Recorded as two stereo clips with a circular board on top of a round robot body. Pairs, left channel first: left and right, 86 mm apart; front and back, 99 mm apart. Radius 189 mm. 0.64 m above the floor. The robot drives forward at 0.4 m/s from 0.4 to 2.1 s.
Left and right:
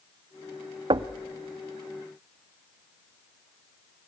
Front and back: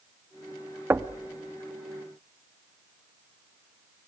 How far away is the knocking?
About 0.7 m.